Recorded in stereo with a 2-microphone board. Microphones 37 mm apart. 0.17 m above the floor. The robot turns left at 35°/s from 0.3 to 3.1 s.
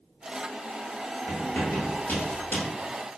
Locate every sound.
1.3 s writing: 65° left (ahead or behind), 1.5 m; by 2.7 s 50° left (ahead or behind), 1.5 m